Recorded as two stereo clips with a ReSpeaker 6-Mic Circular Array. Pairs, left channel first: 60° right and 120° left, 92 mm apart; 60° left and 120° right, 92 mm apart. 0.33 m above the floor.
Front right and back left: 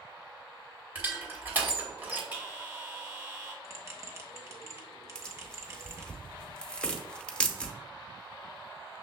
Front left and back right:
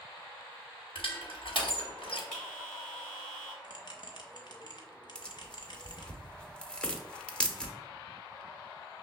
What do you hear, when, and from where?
0.9 s crushing: 50° left, 1.2 m
2.3 s a bell: 135° left, 1.6 m
3.6 s a bell: 70° left, 0.8 m
5.2 s tearing paper: straight ahead, 0.7 m